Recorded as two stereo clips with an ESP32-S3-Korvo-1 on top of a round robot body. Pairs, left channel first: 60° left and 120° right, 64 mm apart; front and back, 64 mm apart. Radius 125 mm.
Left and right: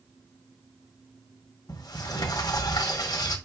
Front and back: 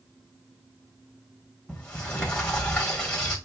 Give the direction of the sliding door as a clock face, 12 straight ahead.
9 o'clock.